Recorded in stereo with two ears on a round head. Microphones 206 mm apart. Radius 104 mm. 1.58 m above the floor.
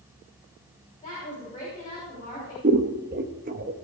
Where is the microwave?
I don't hear a microwave.